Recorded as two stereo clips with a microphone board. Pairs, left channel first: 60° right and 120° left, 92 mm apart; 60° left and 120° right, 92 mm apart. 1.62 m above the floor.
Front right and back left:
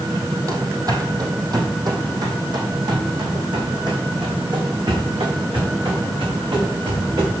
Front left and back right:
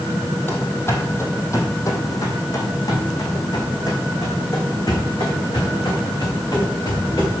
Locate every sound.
0.5 s running footsteps: 110° left, 2 m; by 7.3 s 95° left, 6.5 m